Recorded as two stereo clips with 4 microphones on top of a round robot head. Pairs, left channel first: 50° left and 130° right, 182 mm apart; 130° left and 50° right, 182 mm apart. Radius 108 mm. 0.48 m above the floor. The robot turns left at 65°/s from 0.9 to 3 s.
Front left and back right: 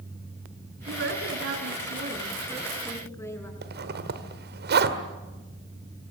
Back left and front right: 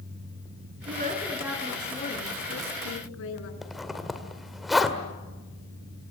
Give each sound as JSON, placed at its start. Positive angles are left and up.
{"t": 0.9, "sound": "a woman speaking", "azimuth_deg": -95, "distance_m": 5.5}
{"t": 3.6, "sound": "a zipper", "azimuth_deg": -140, "distance_m": 2.0}